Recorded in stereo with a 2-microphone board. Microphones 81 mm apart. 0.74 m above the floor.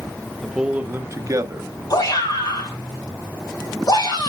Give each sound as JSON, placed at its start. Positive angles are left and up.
{"t": 0.4, "sound": "a man speaking", "side_deg": 0, "distance_m": 0.8}
{"t": 1.9, "sound": "a shout", "side_deg": 55, "distance_m": 4.5}